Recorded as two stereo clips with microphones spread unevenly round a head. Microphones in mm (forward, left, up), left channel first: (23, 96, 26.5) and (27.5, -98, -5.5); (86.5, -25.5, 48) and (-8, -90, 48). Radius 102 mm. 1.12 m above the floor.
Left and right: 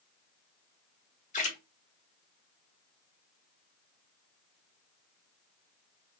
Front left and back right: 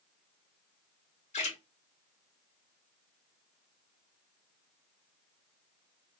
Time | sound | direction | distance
1.3 | a splash | 35° left | 1.5 m